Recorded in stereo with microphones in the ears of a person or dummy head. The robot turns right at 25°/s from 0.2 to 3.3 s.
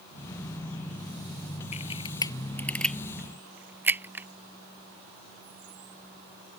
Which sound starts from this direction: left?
A camera shutter, at 1.7 s.